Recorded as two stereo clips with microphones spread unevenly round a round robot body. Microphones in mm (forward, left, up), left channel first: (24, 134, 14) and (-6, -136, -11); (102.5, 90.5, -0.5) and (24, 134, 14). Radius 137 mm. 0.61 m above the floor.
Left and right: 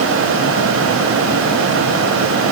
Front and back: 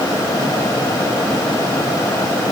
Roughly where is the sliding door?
No sliding door in this recording.